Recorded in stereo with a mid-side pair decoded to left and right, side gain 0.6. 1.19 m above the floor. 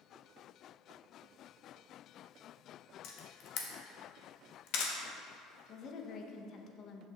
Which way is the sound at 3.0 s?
70° left.